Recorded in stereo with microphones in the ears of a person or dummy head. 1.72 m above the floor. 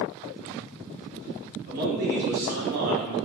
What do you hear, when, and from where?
1.7 s a man speaking: 65° right (ahead or behind), 1.8 m